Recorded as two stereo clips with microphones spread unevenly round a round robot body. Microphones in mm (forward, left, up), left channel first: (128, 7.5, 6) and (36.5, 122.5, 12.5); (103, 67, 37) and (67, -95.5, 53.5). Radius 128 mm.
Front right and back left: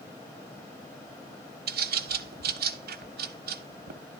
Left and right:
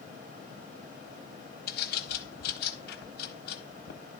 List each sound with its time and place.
1.7 s a bird: 125° left, 0.9 m